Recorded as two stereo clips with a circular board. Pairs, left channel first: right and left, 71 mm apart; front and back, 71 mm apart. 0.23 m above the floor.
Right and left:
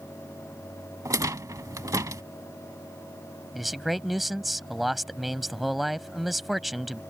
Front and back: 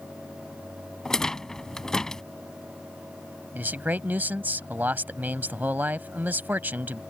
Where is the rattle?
80° left.